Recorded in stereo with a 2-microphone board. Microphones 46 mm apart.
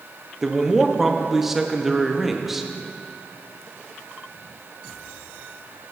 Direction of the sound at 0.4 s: 5° right (ahead or behind).